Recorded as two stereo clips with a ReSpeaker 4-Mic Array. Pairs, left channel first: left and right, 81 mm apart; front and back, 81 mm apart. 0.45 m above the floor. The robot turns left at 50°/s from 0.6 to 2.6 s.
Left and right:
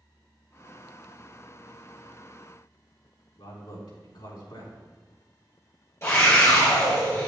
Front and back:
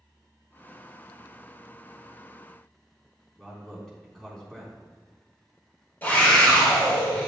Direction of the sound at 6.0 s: 55° left.